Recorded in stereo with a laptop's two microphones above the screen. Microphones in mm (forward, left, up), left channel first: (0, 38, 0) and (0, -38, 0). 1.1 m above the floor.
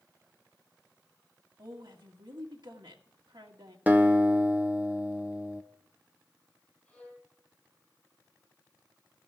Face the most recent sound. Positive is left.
turn(degrees=5)  # may be behind; listen again after turning